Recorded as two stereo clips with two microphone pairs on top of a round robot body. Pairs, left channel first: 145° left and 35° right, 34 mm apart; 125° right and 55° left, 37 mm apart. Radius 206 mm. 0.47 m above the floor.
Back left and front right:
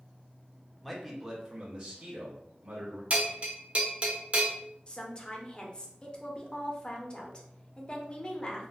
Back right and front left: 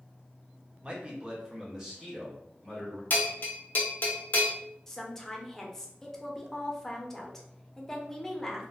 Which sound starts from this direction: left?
A man speaking, at 0.8 s.